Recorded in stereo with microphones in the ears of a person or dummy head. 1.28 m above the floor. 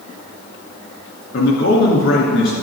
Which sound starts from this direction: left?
A man speaking, at 1.3 s.